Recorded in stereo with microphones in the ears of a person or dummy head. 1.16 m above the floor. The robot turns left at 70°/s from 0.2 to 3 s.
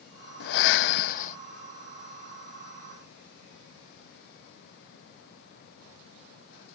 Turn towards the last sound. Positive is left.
turn(degrees=-70)